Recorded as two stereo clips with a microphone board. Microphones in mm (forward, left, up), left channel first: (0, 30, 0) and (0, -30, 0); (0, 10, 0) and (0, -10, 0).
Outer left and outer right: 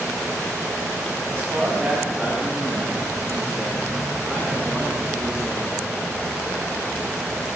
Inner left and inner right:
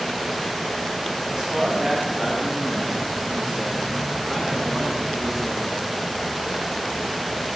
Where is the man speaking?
40° right (ahead or behind), 6 m; by 5.8 s 10° right (ahead or behind), 7.5 m.